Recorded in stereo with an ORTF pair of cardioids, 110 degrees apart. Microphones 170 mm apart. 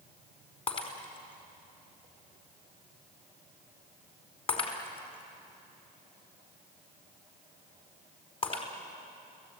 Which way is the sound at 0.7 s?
35° left.